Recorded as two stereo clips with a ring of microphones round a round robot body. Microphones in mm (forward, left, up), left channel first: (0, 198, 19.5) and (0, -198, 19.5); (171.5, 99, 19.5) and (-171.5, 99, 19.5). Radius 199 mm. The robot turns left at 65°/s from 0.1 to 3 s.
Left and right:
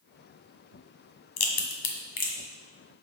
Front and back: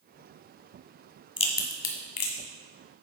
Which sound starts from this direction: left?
A crack, at 1.4 s.